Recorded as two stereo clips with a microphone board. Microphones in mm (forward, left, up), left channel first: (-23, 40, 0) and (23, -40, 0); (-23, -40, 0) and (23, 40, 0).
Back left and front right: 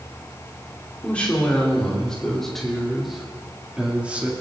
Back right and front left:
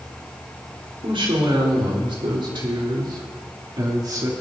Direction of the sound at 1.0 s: 45° left.